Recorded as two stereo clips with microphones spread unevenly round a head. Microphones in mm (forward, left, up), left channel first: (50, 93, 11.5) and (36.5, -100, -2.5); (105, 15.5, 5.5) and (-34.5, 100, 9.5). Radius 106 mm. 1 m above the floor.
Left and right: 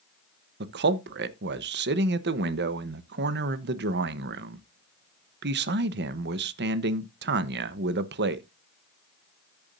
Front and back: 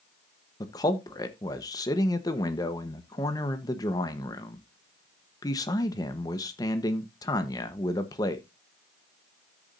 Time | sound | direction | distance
0.6 | a man speaking | 100° right | 0.9 m